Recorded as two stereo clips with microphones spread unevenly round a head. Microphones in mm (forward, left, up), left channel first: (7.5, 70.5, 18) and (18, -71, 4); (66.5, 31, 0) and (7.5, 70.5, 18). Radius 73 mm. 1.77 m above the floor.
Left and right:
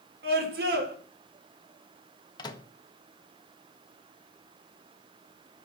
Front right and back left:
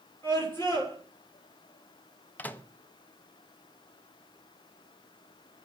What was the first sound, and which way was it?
A scream, 110° right.